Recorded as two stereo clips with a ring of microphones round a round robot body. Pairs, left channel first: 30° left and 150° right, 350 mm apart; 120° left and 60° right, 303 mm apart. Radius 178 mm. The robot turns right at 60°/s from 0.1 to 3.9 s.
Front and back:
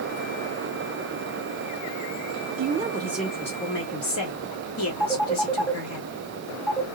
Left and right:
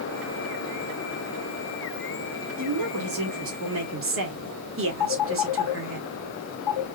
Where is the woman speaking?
95° right, 1.9 m; by 6.0 s 15° right, 1.9 m.